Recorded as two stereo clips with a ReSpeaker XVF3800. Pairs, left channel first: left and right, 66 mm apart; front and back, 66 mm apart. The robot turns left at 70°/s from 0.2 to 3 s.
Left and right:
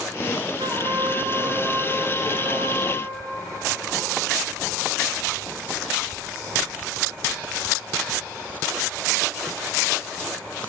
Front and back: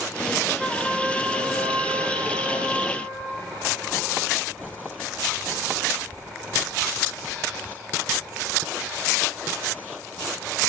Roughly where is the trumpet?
Right.